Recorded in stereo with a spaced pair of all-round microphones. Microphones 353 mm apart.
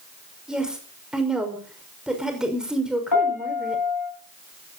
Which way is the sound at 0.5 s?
Centre (ahead or behind).